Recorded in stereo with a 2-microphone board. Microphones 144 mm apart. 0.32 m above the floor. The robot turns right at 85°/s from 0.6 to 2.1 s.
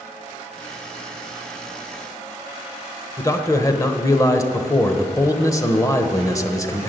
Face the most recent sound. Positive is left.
turn(degrees=20)  # may be behind; listen again after turning